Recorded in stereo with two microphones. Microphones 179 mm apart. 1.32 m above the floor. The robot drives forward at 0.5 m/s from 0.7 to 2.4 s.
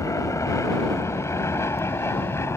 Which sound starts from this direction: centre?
An aircraft, at 0.0 s.